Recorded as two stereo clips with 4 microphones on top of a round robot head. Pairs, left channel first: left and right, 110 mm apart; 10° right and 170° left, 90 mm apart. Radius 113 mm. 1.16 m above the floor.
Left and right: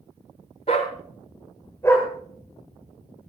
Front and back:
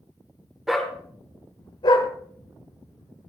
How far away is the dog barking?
About 0.9 m.